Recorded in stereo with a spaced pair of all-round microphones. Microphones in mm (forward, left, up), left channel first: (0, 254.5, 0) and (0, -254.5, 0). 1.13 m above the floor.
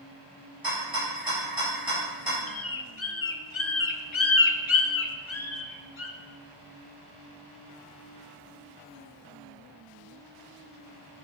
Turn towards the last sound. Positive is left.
turn(degrees=65)  # may be behind; listen again after turning